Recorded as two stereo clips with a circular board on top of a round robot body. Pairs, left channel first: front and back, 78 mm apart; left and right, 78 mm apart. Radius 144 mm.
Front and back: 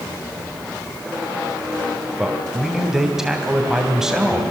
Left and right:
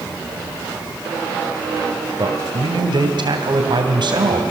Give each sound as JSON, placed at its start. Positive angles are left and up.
{"t": 2.2, "sound": "a man speaking", "azimuth_deg": -95, "distance_m": 3.0}